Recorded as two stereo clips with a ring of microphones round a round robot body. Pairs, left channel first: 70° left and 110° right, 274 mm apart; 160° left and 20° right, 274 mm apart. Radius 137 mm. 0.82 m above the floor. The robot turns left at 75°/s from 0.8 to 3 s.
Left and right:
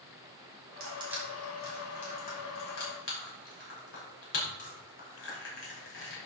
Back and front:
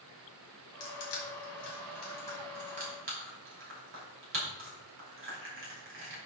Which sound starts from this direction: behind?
Crushing, at 0.8 s.